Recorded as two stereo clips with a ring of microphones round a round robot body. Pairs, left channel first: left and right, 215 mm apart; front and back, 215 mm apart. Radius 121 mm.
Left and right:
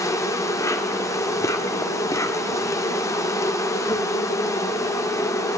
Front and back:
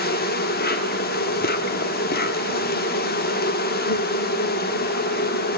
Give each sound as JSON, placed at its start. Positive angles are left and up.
{"t": 0.0, "sound": "an insect", "azimuth_deg": 20, "distance_m": 1.0}